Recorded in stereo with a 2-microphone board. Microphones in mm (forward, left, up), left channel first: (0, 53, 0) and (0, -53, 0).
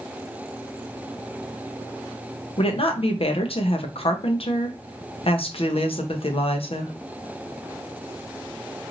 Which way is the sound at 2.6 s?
65° left (ahead or behind).